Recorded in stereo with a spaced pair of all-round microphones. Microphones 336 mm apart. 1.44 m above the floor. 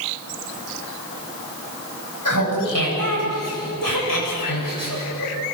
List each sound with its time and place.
2.2 s laughter: 65° left (ahead or behind), 9.5 m; by 5.3 s 85° left, 8.5 m